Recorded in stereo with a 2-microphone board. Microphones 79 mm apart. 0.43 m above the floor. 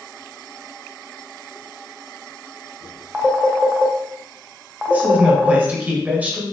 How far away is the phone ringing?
About 0.9 m.